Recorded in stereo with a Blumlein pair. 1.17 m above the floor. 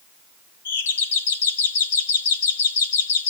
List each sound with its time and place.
0.7 s a doorbell: 65° left, 1.5 m